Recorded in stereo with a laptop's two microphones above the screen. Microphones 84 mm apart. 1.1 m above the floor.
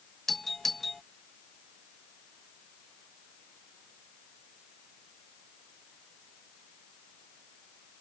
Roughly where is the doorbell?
Centre.